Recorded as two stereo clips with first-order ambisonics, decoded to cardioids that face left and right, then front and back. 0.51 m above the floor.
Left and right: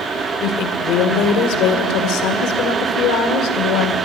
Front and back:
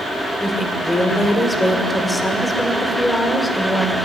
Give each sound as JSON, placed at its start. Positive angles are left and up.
{"t": 0.4, "sound": "a woman speaking", "azimuth_deg": 85, "distance_m": 2.0}